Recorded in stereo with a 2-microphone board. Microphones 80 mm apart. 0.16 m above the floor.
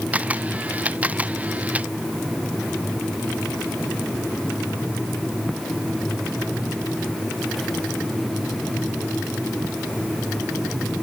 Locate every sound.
0.1 s a camera shutter: 20° right (ahead or behind)